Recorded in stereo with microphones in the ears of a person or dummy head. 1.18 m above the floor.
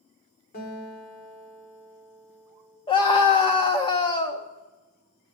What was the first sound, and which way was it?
A guitar, 45° left (ahead or behind).